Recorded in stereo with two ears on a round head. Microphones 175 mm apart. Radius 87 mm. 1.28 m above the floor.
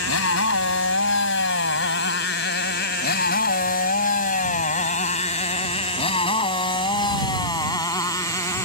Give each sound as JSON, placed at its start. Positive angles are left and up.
{"t": 0.0, "sound": "a motorcycle", "side_deg": 80}